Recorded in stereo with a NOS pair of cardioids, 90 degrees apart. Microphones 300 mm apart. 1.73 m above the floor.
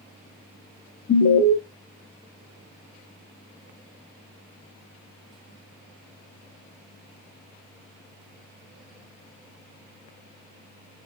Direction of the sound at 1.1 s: 45° left.